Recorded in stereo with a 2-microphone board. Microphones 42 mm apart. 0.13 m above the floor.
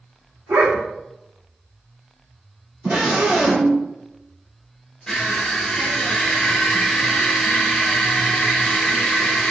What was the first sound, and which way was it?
A dog barking, 60° right (ahead or behind).